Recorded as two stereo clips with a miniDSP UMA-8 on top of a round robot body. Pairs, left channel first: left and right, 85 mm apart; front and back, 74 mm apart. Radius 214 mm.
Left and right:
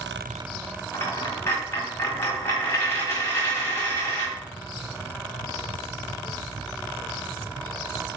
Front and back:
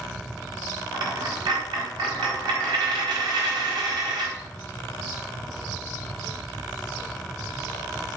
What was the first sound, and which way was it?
A dropped coin, 155° left.